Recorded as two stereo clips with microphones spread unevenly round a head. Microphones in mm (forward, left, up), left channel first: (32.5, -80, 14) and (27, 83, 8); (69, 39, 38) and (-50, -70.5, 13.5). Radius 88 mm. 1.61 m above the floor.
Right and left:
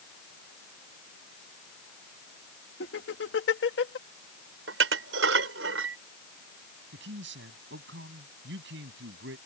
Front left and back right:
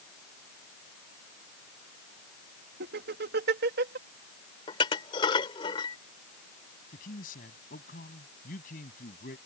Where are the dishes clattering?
105° left.